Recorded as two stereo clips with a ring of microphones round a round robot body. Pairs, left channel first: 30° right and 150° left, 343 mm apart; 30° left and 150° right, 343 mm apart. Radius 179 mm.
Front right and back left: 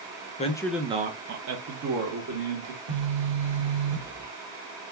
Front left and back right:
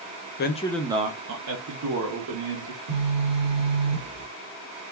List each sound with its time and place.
0.4 s a man speaking: 20° left, 0.5 m; by 2.8 s 175° right, 1.4 m
2.9 s a phone buzzing: 165° right, 1.6 m